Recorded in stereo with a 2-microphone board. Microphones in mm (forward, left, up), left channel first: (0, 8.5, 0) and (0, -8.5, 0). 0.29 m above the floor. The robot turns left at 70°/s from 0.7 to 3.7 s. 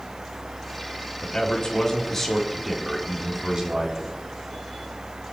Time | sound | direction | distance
1.2 | a man speaking | 95° left | 3 m